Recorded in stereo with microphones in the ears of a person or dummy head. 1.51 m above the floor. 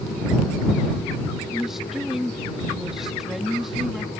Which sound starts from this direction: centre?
A woman speaking, at 1.5 s.